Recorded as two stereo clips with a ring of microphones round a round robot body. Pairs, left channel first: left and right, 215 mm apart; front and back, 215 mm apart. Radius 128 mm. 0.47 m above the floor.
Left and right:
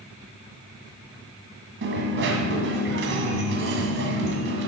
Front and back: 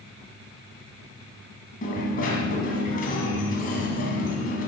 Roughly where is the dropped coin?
Ahead right.